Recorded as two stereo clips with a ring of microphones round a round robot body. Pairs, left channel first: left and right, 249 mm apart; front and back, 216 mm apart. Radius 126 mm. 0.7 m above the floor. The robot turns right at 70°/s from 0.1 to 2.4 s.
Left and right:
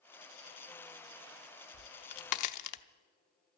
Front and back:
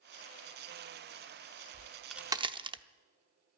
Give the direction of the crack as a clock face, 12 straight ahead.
10 o'clock.